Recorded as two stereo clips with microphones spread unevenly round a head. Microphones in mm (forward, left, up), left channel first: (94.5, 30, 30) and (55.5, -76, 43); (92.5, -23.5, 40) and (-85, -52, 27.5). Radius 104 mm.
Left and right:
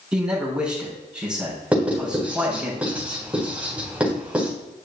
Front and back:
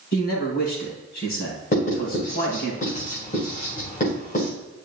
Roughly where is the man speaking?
Ahead right.